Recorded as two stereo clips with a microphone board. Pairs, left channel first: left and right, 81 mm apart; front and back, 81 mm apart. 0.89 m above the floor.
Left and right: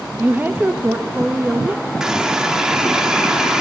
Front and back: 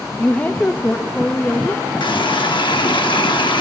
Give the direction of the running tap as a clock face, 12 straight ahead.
12 o'clock.